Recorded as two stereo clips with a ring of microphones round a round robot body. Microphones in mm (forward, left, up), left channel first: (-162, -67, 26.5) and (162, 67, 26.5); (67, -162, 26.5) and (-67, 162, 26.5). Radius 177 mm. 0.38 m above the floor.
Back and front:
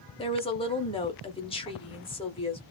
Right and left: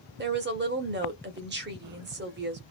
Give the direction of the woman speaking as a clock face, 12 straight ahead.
7 o'clock.